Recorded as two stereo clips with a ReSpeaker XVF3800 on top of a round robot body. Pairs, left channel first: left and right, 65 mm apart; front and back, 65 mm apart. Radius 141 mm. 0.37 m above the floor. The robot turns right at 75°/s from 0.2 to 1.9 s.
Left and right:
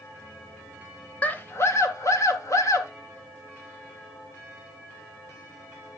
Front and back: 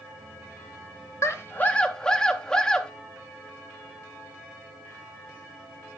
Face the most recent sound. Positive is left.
turn(degrees=80)